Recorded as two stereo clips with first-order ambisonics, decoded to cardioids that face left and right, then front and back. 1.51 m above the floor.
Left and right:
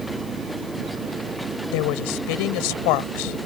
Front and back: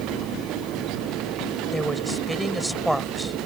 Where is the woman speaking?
95° left.